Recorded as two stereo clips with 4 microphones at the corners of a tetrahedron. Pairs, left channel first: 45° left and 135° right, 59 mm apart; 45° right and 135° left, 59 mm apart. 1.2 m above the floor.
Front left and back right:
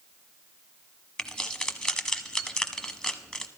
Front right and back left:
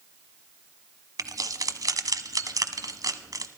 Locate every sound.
1.2 s keys jangling: 120° left, 1.0 m